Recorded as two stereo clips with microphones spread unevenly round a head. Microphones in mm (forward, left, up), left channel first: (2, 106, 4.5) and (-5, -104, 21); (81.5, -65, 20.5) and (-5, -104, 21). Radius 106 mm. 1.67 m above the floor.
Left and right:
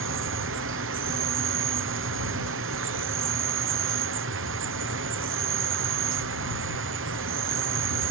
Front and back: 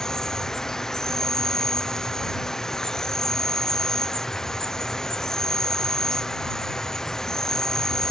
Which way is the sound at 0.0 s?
60° right.